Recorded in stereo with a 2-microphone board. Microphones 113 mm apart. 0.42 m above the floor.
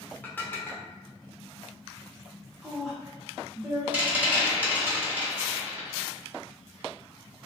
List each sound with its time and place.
0.2 s dishes clattering: 15° left (ahead or behind), 0.6 m
2.6 s a woman speaking: 5° right (ahead or behind), 0.8 m
3.9 s a rattle: 15° right (ahead or behind), 1.0 m